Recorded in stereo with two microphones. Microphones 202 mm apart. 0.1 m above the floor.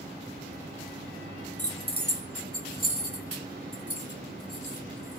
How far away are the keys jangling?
About 1.3 m.